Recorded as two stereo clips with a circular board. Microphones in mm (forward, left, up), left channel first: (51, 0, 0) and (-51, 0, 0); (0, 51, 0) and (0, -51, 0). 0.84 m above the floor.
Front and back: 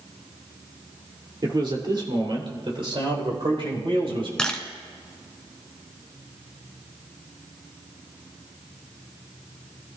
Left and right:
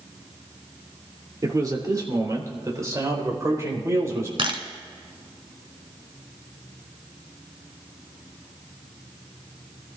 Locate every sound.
1.4 s a man speaking: 140° right, 2.5 m; by 4.3 s 150° right, 4.5 m
4.4 s a camera shutter: 80° right, 1.3 m